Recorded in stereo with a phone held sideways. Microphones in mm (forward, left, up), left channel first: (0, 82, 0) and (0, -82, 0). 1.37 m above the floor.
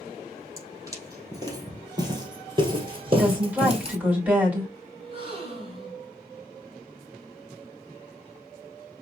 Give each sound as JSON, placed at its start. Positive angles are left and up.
{"t": 0.6, "sound": "footsteps", "side_deg": -20, "distance_m": 3.0}
{"t": 3.1, "sound": "a woman speaking", "side_deg": -10, "distance_m": 4.0}
{"t": 5.0, "sound": "a gasp", "side_deg": -35, "distance_m": 2.5}